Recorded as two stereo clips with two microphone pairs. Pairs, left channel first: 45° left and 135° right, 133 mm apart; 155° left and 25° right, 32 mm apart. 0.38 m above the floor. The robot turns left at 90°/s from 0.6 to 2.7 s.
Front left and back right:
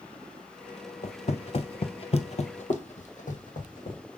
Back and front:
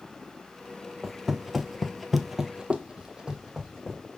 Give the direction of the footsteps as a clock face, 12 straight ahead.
10 o'clock.